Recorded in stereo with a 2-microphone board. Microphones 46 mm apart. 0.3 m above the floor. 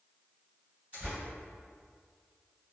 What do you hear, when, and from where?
0.9 s tearing paper: 40° right (ahead or behind), 1.7 m